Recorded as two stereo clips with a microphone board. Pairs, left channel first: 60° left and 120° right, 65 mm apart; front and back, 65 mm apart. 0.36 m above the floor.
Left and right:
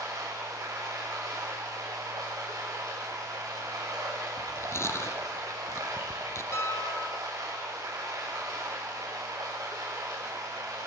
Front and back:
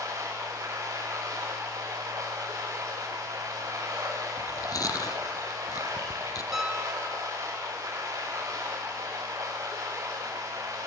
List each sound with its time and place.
0.0 s running water: 145° right, 8 m
4.4 s chewing: 15° left, 2 m
6.5 s a piano: 95° left, 2 m